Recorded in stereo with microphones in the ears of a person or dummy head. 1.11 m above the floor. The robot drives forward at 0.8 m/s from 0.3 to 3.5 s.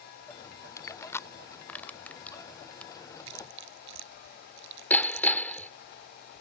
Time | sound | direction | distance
0.8 | crushing | 20° left (ahead or behind) | ?
3.3 | chewing | 75° right (ahead or behind) | ?
4.9 | hammering | 10° left (ahead or behind) | ?